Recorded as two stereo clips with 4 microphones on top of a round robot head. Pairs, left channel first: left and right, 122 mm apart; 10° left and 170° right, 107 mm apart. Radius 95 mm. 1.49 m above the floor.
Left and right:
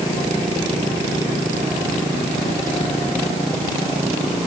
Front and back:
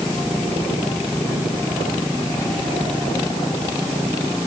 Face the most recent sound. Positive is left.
No sound to turn to.